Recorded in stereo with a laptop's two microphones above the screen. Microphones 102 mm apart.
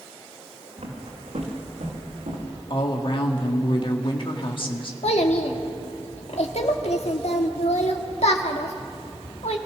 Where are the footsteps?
75° right (ahead or behind), 4.5 m; by 2.6 s 80° right, 6.5 m.